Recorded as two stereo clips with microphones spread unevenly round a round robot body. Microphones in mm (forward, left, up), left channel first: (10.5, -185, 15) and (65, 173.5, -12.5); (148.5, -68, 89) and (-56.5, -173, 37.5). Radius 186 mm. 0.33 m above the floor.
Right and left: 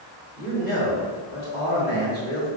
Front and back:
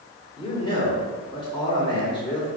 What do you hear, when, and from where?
0.4 s a man speaking: 50° right, 1.6 m